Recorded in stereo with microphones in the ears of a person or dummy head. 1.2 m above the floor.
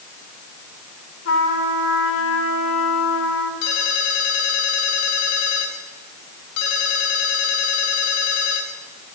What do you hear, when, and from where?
1.2 s a trumpet: 85° left, 5 m
3.6 s a ringtone: 70° left (ahead or behind), 4 m